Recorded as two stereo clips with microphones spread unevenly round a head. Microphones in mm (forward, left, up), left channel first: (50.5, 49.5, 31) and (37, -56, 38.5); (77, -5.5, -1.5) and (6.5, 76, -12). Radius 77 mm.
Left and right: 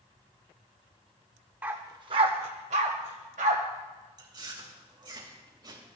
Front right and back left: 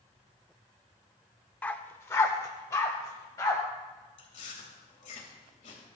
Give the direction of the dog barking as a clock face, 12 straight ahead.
2 o'clock.